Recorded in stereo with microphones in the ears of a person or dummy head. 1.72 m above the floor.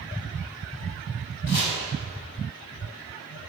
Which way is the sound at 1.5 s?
60° left (ahead or behind).